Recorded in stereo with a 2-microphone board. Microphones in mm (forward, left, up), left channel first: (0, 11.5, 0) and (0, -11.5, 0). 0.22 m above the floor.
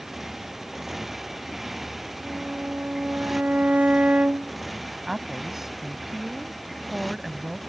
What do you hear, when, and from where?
0.0 s a motorcycle: 10° right (ahead or behind); by 7.7 s centre (ahead or behind)
2.2 s a violin: 65° right (ahead or behind)
5.1 s a woman speaking: 15° right (ahead or behind)